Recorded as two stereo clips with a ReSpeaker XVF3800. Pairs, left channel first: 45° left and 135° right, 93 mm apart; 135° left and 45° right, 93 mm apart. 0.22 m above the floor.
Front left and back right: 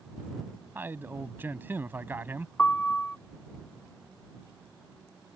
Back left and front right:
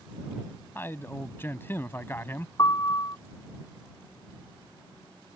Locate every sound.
0.8 s a man speaking: 175° left
2.6 s a piano: 115° left